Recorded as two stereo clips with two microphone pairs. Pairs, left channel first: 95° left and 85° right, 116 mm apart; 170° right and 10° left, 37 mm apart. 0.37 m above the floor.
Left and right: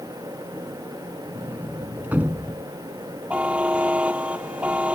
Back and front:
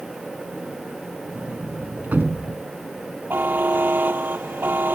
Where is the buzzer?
10° right.